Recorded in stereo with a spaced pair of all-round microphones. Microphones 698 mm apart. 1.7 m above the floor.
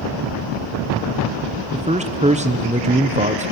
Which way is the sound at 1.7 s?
10° right (ahead or behind).